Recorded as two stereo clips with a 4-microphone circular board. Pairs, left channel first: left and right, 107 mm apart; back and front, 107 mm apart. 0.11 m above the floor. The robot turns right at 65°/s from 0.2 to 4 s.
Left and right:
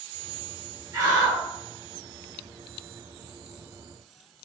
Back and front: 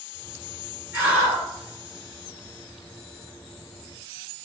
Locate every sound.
0.9 s a scream: 65° right, 1.9 m; by 1.4 s 30° right, 1.9 m